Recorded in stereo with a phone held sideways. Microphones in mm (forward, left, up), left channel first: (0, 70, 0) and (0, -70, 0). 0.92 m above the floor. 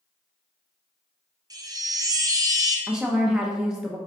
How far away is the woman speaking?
About 0.5 m.